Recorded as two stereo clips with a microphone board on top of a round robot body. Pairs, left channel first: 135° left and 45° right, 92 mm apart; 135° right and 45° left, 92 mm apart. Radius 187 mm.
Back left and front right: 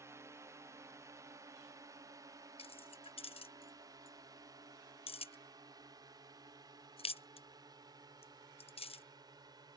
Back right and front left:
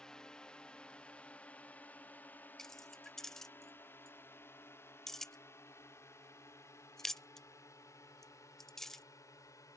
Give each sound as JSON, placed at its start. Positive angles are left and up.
{"t": 0.0, "sound": "a drone", "azimuth_deg": -60}
{"t": 2.6, "sound": "keys jangling", "azimuth_deg": 140}